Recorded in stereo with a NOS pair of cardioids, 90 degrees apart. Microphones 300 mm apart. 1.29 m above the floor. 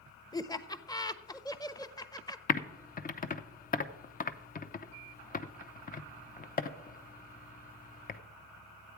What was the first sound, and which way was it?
Laughter, 15° left.